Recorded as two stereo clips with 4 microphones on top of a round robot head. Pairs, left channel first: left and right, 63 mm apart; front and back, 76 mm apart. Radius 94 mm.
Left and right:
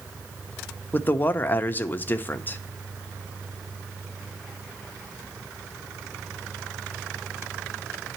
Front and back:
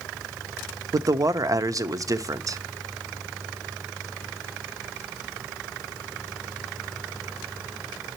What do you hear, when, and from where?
0.9 s a man speaking: 145° left, 0.6 m